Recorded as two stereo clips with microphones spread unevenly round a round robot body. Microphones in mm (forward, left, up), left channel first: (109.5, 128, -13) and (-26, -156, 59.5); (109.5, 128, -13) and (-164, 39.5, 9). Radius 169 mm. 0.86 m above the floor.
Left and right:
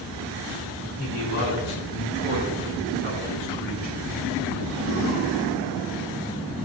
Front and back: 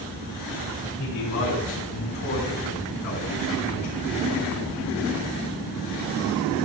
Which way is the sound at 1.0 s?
20° left.